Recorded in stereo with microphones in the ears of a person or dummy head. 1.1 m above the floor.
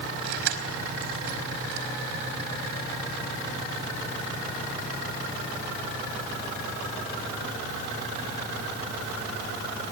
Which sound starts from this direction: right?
Keys jangling, at 0.2 s.